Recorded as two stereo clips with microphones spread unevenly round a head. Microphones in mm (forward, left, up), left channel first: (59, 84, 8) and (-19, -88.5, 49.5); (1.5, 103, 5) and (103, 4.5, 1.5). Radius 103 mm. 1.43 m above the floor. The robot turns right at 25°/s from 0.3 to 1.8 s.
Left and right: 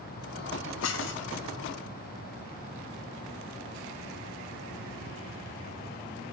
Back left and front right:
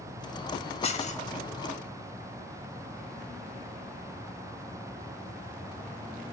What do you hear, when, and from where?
0.8 s dishes clattering: 95° left, 1.0 m; by 1.3 s 105° left, 1.0 m